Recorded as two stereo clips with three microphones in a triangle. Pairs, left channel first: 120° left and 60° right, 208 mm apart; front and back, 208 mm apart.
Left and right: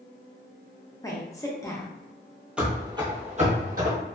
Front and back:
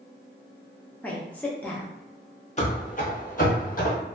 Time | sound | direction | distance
1.0 | a woman speaking | 70° left | 0.6 m
2.6 | running footsteps | 20° left | 0.8 m